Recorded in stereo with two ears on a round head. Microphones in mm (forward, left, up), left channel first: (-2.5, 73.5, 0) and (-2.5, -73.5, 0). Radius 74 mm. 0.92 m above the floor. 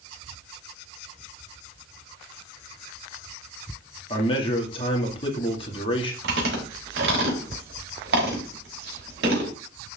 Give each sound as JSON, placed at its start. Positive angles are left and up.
{"t": 4.1, "sound": "a man speaking", "side_deg": 30, "distance_m": 2.0}
{"t": 6.2, "sound": "chewing", "side_deg": -65, "distance_m": 5.0}